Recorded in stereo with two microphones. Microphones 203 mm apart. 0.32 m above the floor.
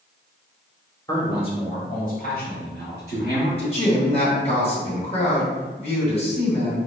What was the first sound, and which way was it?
A man speaking, 15° left (ahead or behind).